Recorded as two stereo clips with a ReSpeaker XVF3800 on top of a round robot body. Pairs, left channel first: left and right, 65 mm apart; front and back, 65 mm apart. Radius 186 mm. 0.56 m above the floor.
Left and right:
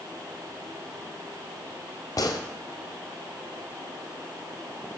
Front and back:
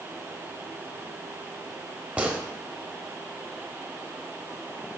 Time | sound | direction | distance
2.2 | a gunshot | 115° left | 1.1 m